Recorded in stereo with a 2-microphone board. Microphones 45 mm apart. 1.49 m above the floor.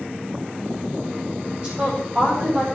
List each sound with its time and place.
1.6 s a woman speaking: 25° right (ahead or behind), 7.5 m